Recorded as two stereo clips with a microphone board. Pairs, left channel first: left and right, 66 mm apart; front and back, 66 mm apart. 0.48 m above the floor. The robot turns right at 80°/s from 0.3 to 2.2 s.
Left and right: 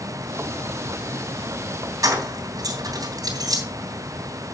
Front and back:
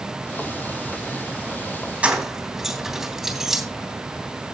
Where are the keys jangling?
110° right, 3 m; by 3.6 s 95° right, 3 m.